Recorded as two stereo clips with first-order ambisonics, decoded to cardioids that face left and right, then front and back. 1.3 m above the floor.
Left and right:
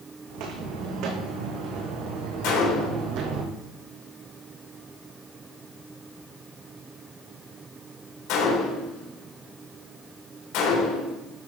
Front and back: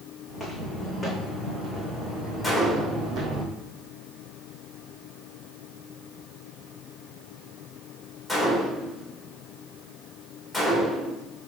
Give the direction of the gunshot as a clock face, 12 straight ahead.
9 o'clock.